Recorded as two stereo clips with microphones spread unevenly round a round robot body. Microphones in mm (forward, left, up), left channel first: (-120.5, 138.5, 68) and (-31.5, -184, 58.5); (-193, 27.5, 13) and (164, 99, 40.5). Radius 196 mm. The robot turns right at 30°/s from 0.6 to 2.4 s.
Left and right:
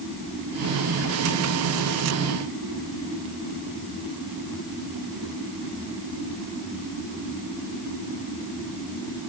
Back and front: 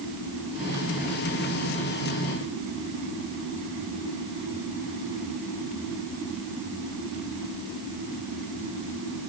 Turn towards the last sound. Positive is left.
No sound to turn to.